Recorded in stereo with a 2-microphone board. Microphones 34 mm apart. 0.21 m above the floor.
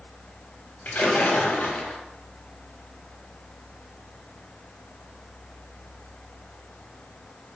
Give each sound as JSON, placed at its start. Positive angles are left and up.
{"t": 0.8, "sound": "a splash", "side_deg": 60, "distance_m": 1.3}